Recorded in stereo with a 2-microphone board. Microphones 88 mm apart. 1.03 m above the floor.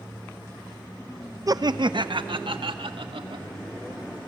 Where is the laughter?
40° right (ahead or behind), 0.8 m; by 3.5 s 80° right, 2.5 m.